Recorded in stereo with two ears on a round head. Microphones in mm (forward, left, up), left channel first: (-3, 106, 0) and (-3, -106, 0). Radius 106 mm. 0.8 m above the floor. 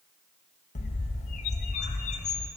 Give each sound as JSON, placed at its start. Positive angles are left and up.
{"t": 0.8, "sound": "a bird", "side_deg": 30, "distance_m": 0.6}